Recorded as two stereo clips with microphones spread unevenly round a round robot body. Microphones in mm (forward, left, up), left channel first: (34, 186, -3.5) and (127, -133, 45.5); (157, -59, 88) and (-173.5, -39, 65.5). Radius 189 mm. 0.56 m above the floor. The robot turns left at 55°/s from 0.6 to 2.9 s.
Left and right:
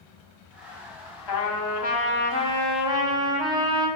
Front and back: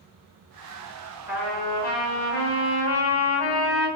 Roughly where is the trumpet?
Left.